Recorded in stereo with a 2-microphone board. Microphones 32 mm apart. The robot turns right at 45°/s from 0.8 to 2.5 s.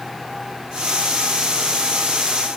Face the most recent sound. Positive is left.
No sound to turn to.